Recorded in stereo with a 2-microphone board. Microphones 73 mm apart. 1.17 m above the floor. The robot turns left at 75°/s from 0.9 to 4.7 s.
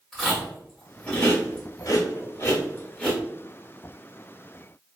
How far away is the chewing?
About 1.2 m.